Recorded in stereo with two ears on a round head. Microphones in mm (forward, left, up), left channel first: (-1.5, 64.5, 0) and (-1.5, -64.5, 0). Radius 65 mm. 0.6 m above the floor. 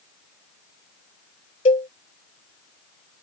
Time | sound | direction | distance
1.6 | a cowbell | 45° left (ahead or behind) | ?